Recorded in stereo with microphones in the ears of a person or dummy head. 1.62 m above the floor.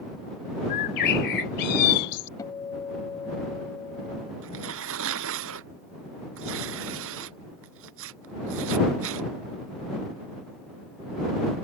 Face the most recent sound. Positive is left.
turn(degrees=-75)  # may be behind; listen again after turning